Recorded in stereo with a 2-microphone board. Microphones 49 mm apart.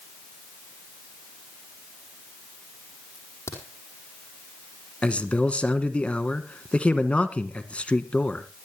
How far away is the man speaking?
About 1.2 m.